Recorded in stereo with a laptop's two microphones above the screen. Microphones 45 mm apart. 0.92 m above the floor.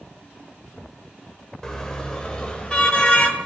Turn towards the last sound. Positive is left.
turn(degrees=25)  # may be behind; listen again after turning